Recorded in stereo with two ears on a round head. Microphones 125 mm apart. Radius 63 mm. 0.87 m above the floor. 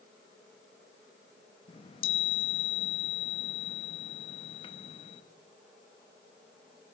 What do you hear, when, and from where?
1.7 s a chime: 35° left (ahead or behind), 0.9 m